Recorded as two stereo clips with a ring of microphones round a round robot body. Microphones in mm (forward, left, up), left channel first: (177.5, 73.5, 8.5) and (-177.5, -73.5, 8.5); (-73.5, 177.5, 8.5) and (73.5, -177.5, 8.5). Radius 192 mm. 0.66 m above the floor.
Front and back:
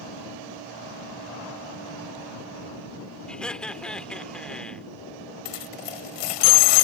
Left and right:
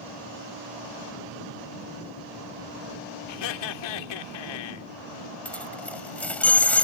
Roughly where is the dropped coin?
Ahead left.